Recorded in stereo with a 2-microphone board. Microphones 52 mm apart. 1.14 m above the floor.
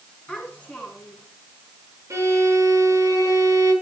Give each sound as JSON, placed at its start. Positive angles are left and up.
{"t": 0.3, "sound": "a child speaking", "side_deg": 15, "distance_m": 8.5}
{"t": 2.1, "sound": "a violin", "side_deg": -60, "distance_m": 8.5}